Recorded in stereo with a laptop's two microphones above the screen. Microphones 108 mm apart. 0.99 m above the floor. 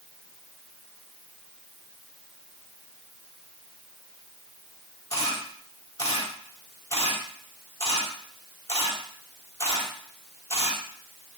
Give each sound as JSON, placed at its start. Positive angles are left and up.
{"t": 5.1, "sound": "a camera shutter", "side_deg": 30, "distance_m": 4.5}